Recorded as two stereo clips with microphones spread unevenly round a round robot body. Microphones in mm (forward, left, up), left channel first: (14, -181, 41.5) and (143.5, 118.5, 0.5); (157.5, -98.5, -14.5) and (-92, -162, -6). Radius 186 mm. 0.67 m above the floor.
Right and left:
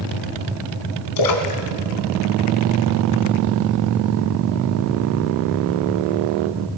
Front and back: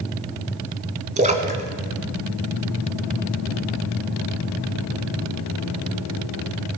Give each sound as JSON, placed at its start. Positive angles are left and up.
{"t": 1.2, "sound": "a splash", "azimuth_deg": -105, "distance_m": 1.4}